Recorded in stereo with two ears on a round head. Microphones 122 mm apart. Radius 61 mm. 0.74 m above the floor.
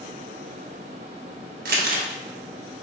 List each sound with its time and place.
1.6 s crumpling: 70° right (ahead or behind), 0.8 m